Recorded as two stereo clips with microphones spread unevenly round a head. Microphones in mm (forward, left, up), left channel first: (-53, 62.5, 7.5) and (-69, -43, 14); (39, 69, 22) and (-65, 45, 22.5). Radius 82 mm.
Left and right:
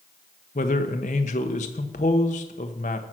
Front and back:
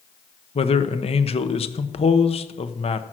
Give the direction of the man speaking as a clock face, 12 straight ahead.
11 o'clock.